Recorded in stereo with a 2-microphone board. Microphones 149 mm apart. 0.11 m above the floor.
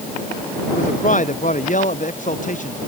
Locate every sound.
0.7 s a man speaking: 60° left (ahead or behind)